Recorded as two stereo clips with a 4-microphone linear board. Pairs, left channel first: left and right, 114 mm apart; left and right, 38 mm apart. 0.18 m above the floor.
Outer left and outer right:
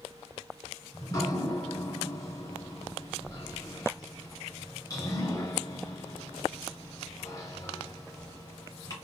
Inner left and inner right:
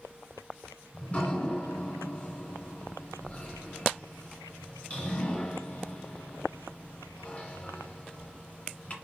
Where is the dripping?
35° left (ahead or behind), 2.0 m.